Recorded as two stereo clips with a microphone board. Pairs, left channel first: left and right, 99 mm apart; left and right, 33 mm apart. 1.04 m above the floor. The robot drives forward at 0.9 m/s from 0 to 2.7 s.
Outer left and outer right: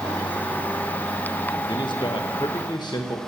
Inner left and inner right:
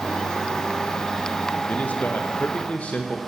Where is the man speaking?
50° left (ahead or behind), 1.2 m.